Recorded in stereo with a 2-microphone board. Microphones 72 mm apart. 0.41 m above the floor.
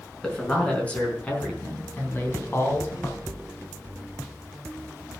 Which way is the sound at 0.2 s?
10° left (ahead or behind).